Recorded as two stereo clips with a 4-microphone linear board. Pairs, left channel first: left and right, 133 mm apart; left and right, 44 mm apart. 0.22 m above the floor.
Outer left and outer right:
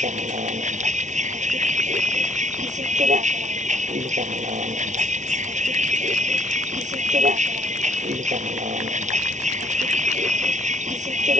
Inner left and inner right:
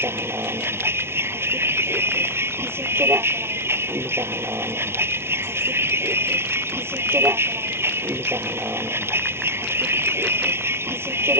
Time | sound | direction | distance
0.0 | a vehicle | 65° right (ahead or behind) | ?